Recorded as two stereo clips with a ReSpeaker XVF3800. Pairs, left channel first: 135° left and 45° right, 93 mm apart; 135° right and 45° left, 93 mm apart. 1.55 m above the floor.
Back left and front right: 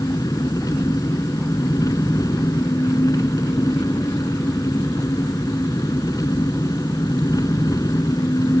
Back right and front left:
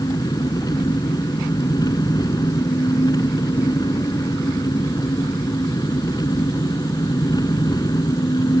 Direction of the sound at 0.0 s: Straight behind.